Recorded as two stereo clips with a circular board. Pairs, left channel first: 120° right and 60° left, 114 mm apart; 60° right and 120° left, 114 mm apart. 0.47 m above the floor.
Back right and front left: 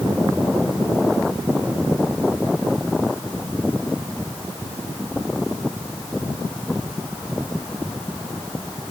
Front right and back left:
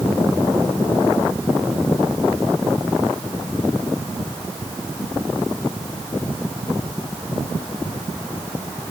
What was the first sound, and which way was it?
Only background noise.